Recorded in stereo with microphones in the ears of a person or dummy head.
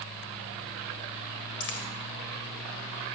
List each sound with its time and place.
1.6 s a dropped coin: 60° left (ahead or behind), 2 m